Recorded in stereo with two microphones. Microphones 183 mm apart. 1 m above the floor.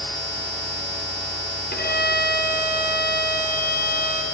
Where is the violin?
60° left (ahead or behind), 1.3 m.